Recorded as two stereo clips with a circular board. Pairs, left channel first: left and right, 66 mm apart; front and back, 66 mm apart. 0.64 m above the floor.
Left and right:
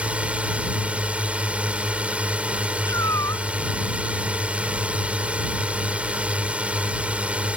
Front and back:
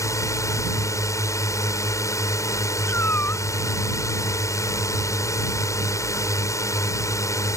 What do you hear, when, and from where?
0.0 s a drone: 20° right
2.9 s a cat meowing: 55° left